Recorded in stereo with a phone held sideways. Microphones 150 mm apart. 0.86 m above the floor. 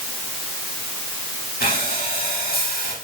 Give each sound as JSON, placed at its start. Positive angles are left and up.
{"t": 1.6, "sound": "breathing", "side_deg": 80, "distance_m": 6.0}